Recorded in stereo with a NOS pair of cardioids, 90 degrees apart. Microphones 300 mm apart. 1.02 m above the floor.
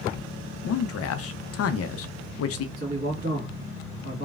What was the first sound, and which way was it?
A man speaking, 55° left.